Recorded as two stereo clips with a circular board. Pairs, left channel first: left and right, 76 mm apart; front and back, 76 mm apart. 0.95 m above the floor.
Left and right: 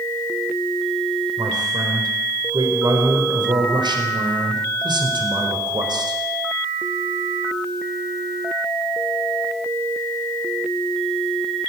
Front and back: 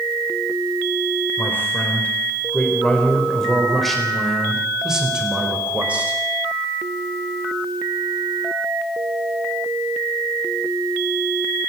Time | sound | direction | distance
1.4 | a man speaking | 65° right | 4 m